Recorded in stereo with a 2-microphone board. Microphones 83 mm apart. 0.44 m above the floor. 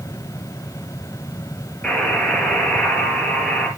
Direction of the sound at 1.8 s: 10° left (ahead or behind).